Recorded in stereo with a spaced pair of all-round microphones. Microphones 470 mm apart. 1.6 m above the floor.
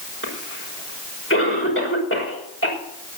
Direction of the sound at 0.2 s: 25° left (ahead or behind).